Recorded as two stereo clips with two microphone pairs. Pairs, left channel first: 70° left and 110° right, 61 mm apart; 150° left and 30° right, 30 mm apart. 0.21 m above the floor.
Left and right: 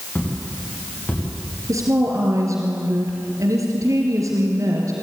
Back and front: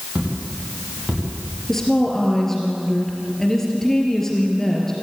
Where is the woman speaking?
135° right, 3.5 m.